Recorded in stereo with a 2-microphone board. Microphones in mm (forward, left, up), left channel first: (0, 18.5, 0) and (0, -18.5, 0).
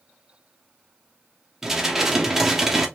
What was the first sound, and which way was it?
Dishes clattering, 10° right (ahead or behind).